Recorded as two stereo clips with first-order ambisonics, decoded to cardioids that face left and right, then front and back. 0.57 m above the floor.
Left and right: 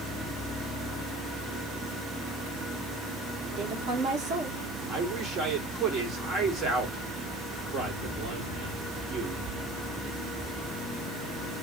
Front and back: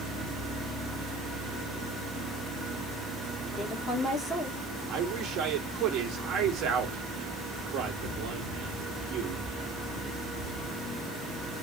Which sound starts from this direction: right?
A woman speaking, at 3.6 s.